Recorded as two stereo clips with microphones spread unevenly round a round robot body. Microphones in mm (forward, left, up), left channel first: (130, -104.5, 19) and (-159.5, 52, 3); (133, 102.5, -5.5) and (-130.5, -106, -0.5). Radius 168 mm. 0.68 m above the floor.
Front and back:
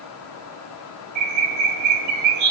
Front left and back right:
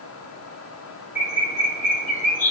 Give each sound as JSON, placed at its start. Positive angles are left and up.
{"t": 1.1, "sound": "a bird", "azimuth_deg": 110, "distance_m": 1.1}